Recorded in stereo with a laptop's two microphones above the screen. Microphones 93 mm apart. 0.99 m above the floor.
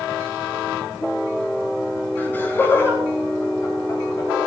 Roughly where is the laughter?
Centre.